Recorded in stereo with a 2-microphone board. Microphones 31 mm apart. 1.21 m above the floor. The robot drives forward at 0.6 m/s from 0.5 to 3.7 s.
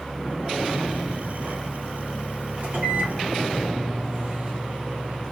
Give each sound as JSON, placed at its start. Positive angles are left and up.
{"t": 2.6, "sound": "a microwave", "side_deg": -55, "distance_m": 2.0}